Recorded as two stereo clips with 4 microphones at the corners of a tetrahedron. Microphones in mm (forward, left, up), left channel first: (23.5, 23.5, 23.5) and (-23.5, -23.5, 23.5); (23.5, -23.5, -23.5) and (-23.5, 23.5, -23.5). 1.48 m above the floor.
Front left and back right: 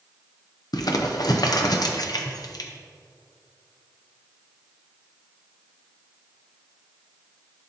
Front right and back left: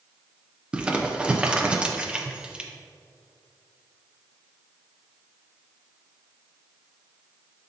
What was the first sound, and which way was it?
Crumpling, 60° left.